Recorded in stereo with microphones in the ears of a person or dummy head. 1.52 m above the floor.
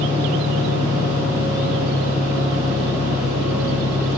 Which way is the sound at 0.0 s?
45° left (ahead or behind).